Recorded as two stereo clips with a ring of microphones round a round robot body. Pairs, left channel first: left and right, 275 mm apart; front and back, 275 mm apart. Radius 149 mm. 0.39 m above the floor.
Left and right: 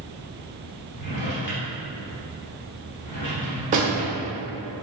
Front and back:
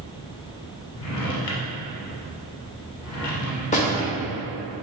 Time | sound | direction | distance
1.0 | a drawer | 30° left | 0.9 m
3.7 | a door slam | 45° right | 1.0 m